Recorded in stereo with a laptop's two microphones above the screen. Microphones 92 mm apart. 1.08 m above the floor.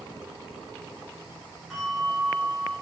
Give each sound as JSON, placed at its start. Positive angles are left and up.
{"t": 1.7, "sound": "a bell", "side_deg": -5, "distance_m": 4.0}